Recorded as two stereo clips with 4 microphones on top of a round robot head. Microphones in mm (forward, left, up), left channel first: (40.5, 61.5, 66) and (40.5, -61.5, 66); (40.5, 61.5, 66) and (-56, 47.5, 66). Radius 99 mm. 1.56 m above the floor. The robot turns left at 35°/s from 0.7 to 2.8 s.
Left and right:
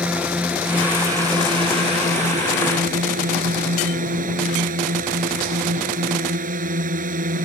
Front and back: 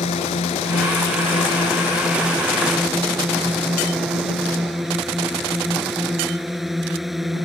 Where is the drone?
10° right; by 7.5 s 85° right.